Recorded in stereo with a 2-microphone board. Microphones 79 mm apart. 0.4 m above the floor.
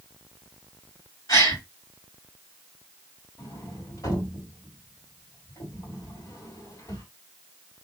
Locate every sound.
1.3 s a gasp: 55° left (ahead or behind), 2.5 m
3.4 s a sliding door: 45° left (ahead or behind), 2.5 m